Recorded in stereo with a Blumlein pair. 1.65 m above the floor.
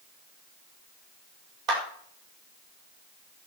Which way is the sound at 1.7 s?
40° right.